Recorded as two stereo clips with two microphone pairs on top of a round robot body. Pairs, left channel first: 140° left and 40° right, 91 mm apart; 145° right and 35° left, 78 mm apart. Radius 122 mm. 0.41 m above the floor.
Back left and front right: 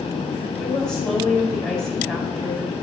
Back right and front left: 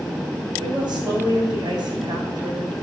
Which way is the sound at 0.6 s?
55° left.